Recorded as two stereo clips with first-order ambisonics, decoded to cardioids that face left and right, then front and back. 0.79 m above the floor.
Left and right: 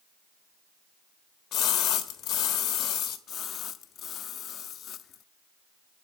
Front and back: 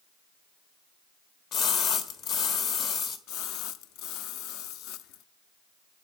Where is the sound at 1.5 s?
45° left, 1.4 m.